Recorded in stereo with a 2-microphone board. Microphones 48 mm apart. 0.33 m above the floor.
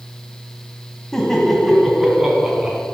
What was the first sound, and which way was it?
Laughter, 10° left (ahead or behind).